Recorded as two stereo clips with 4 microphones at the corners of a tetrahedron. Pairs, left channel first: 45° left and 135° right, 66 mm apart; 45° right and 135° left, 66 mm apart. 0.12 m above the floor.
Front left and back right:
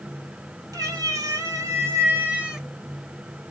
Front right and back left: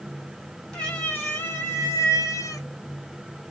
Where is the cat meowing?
120° right, 1.5 m; by 2.7 s 50° right, 0.9 m.